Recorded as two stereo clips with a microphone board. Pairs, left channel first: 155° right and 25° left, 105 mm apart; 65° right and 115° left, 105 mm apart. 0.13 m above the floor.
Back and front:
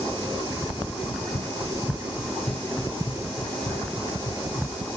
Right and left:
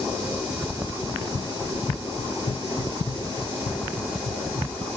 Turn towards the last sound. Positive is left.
turn(degrees=-100)